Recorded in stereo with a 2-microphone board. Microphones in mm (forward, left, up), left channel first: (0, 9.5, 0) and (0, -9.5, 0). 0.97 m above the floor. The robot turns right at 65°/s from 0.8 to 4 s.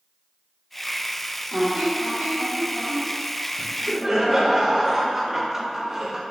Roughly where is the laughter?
Right.